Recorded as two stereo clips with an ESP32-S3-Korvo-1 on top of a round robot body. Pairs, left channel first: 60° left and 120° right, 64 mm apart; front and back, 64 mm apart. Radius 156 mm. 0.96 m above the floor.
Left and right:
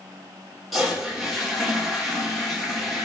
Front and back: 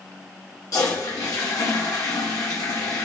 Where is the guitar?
No guitar in this recording.